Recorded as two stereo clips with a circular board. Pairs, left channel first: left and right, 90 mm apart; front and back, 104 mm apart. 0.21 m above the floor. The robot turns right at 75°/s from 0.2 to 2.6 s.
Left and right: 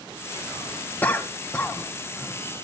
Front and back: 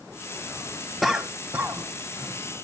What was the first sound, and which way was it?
A cough, 90° left.